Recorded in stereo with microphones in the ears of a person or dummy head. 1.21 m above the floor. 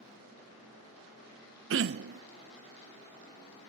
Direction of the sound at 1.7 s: 60° right (ahead or behind).